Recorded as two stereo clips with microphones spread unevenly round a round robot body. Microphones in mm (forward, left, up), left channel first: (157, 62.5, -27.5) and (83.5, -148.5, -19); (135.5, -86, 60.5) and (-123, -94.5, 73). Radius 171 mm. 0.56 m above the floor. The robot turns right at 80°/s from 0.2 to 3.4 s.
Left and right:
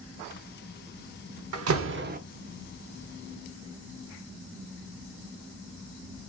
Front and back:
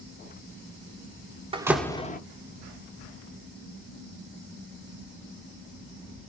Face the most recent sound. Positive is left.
turn(degrees=45)